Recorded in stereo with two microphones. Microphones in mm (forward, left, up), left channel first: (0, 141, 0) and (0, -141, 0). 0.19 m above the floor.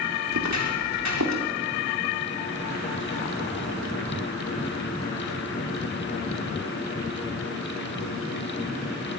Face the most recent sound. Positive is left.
turn(degrees=-80)